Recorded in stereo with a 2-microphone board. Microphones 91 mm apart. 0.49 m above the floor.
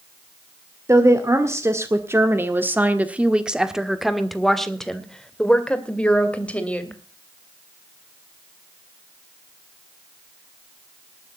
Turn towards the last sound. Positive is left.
turn(degrees=15)  # may be behind; listen again after turning